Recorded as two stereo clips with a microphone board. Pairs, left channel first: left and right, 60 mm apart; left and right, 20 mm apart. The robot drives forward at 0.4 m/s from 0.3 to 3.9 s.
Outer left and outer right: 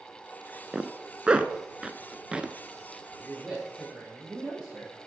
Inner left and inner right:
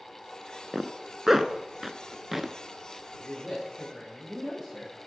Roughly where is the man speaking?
Centre.